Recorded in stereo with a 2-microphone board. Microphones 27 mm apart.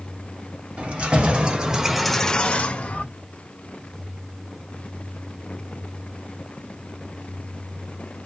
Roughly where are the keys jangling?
Right.